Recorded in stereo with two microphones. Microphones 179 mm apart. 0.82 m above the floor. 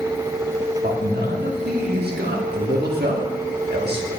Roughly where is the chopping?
I don't hear chopping.